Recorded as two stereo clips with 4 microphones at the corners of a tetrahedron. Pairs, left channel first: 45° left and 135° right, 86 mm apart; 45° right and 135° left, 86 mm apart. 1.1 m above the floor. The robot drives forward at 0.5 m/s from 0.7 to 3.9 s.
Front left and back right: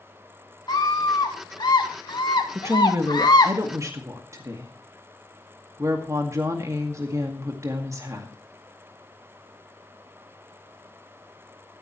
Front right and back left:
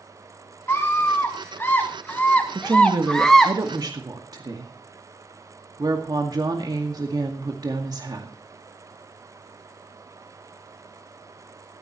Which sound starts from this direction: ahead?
A scream, at 0.7 s.